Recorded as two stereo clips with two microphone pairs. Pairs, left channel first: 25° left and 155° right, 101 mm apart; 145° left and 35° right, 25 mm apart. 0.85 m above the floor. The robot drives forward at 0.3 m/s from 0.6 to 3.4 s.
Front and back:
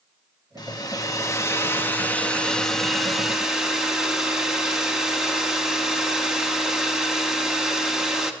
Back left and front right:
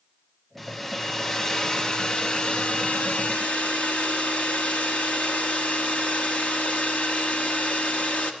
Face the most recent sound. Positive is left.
turn(degrees=120)